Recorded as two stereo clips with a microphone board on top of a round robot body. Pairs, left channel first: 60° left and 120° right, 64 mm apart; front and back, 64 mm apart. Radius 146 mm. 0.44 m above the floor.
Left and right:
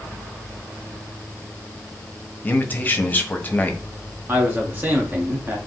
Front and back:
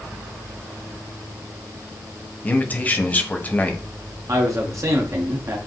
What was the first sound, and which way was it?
A man speaking, 35° left.